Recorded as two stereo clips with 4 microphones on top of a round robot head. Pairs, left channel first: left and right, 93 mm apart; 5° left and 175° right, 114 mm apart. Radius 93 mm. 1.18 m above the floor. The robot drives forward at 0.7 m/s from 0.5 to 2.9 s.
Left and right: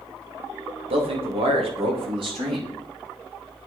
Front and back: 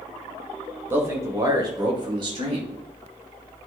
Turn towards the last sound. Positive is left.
turn(degrees=-130)